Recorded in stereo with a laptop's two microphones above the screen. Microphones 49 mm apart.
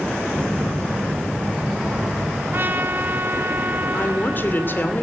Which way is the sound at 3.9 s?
40° left (ahead or behind).